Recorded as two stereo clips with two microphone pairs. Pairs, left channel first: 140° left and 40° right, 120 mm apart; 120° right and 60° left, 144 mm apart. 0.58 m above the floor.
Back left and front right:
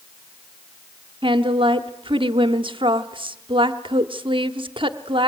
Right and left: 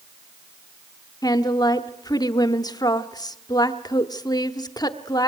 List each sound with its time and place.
1.2 s a woman speaking: 65° right, 1.0 m